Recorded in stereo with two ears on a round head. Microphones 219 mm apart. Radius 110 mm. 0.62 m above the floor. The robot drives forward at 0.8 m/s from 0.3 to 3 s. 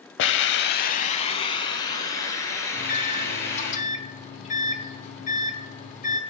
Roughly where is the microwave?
Left.